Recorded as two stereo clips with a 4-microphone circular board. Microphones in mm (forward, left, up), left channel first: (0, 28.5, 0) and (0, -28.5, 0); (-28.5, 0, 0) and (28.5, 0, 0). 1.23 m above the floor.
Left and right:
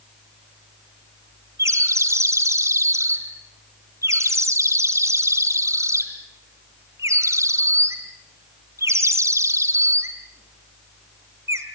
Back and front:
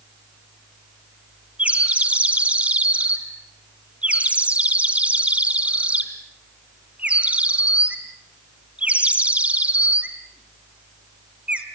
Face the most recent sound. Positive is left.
turn(degrees=-65)